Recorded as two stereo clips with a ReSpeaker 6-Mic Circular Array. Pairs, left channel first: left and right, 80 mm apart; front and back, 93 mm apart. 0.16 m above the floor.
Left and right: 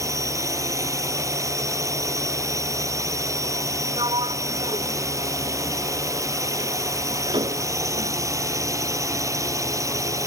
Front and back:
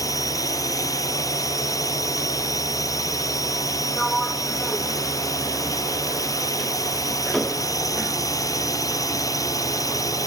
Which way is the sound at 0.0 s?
45° right.